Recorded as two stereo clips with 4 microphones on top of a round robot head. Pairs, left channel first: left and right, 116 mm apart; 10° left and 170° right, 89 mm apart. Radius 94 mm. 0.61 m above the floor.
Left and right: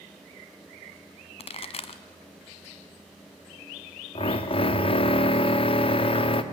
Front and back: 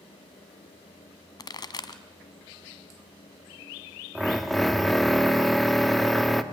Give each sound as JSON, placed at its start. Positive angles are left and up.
{"t": 1.4, "sound": "a pop", "azimuth_deg": 55, "distance_m": 1.3}
{"t": 4.2, "sound": "a drill", "azimuth_deg": 100, "distance_m": 1.5}